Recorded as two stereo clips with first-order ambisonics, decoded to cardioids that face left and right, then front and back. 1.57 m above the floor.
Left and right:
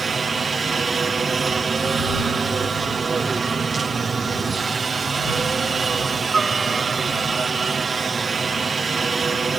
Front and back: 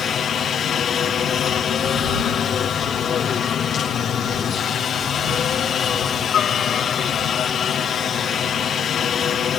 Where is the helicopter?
30° right.